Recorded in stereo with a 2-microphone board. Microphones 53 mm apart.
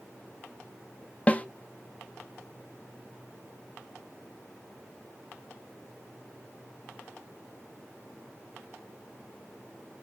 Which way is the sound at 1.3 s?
25° left (ahead or behind).